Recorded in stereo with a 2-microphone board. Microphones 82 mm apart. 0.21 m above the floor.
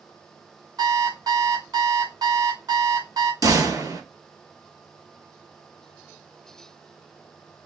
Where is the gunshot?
45° right (ahead or behind), 2.5 m.